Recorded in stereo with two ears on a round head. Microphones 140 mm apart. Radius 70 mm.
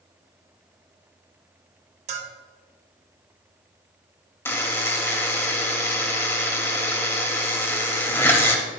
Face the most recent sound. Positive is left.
turn(degrees=15)  # may be behind; listen again after turning